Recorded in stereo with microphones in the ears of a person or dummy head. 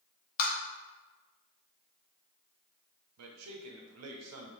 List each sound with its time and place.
0.4 s tapping: 50° left (ahead or behind), 0.8 m
3.2 s a man speaking: 85° right, 0.6 m